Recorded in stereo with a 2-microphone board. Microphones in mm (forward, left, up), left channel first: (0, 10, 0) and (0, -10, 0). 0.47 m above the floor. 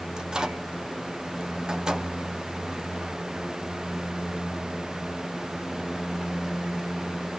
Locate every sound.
0.2 s a microwave: 40° right (ahead or behind), 1.4 m